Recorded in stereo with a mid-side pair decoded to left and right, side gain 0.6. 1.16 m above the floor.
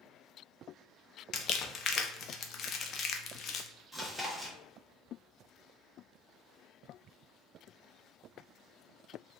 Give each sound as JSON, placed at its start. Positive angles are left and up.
{"t": 1.3, "sound": "crumpling", "azimuth_deg": 45, "distance_m": 0.6}
{"t": 3.9, "sound": "chewing", "azimuth_deg": 0, "distance_m": 1.5}